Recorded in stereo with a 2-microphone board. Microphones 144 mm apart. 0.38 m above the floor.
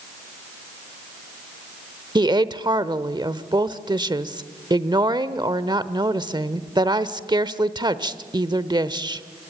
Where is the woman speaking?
30° right (ahead or behind), 0.9 m.